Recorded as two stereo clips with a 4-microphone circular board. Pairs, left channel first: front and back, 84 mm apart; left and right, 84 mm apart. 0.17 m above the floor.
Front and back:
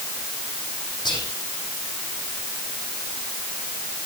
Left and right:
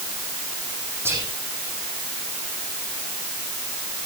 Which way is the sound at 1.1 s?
30° right.